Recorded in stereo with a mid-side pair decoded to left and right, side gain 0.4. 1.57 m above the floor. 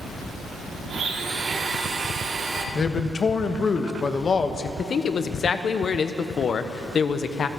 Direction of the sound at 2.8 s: 45° left.